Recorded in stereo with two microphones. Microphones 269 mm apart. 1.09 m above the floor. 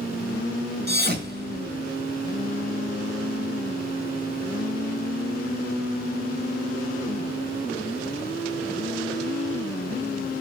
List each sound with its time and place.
0.9 s a thud: 40° right (ahead or behind), 1.6 m